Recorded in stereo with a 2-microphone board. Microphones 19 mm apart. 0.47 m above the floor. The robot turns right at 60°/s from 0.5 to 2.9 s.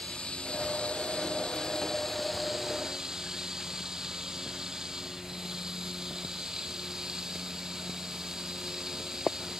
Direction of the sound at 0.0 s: 70° left.